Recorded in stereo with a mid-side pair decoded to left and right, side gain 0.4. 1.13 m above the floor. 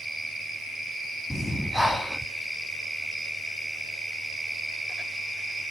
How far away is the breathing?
About 1.8 m.